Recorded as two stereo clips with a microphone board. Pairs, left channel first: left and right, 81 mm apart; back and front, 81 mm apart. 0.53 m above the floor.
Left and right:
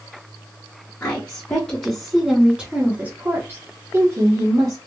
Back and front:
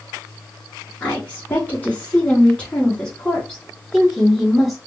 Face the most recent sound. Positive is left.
turn(degrees=-95)